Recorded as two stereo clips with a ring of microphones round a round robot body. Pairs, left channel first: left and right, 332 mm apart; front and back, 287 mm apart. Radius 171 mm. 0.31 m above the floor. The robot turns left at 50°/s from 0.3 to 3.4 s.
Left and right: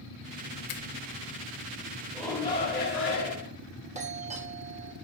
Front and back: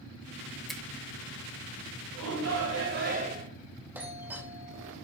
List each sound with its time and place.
0.7 s a finger snap: 90° left, 0.9 m; by 0.8 s 80° left, 0.9 m
2.1 s a shout: straight behind, 3 m; by 3.5 s 120° left, 3 m
4.0 s a doorbell: 110° right, 1.3 m